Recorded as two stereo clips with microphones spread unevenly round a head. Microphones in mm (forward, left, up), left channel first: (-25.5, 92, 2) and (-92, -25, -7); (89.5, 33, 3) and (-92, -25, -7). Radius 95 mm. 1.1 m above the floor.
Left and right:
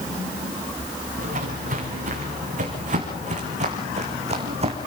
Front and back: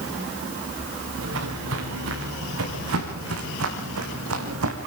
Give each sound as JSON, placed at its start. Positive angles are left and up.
{"t": 1.2, "sound": "footsteps", "azimuth_deg": -140, "distance_m": 6.0}